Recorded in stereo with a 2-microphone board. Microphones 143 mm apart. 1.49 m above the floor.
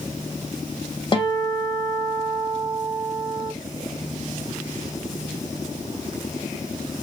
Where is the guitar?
35° left (ahead or behind), 1.3 m.